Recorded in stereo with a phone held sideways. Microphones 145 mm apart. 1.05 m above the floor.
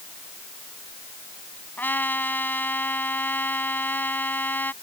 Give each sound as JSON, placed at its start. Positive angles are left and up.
{"t": 1.8, "sound": "a trumpet", "side_deg": 10}